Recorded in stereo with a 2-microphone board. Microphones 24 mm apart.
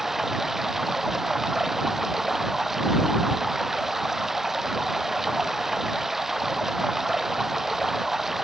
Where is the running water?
15° right (ahead or behind).